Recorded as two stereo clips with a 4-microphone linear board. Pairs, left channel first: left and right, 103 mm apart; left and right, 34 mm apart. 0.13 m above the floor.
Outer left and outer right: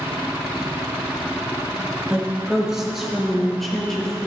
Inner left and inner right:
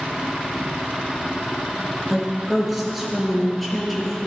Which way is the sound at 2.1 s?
10° right (ahead or behind).